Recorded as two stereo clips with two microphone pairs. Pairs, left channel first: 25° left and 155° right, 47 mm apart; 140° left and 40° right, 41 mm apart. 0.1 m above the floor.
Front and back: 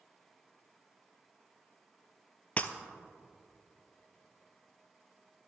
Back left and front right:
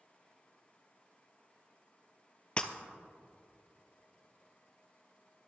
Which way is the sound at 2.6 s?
80° left.